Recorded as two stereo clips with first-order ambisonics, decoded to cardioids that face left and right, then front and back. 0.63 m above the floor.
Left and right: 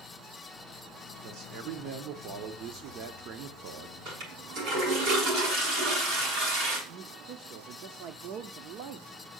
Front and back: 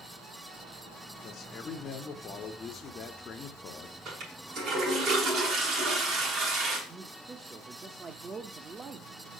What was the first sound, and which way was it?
A man speaking, 60° right.